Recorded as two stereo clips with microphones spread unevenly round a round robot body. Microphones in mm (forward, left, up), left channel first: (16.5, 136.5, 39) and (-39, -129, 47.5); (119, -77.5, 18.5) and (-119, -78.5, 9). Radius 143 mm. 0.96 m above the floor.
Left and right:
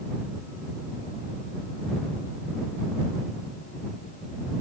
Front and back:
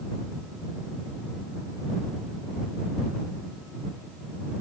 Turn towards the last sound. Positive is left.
No sound to turn to.